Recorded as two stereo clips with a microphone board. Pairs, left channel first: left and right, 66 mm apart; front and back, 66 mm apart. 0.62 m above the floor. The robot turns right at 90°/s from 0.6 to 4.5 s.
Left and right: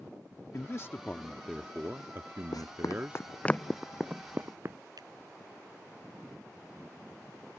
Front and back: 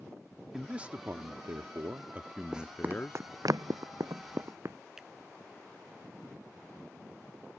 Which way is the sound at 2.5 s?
100° left.